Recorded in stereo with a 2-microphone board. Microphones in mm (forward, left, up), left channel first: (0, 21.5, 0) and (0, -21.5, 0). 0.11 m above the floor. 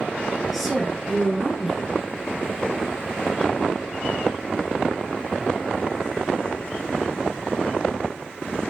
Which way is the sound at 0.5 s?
Centre (ahead or behind).